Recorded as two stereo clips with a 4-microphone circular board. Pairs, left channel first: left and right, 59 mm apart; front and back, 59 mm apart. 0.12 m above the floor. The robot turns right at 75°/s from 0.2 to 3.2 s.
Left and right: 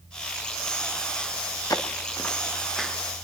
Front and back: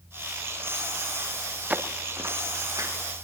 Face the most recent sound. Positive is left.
turn(degrees=-150)